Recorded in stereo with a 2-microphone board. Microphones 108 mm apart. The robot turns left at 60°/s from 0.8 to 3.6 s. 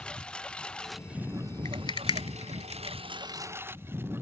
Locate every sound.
0.0 s a lawn mower: 5° left; by 4.2 s 160° right
1.6 s a rattle: 35° left (ahead or behind); by 3.0 s 60° left (ahead or behind)